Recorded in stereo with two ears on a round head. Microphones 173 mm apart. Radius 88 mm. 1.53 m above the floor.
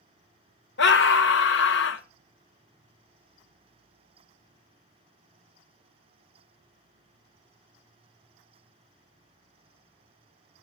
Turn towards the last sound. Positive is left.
turn(degrees=65)  # may be behind; listen again after turning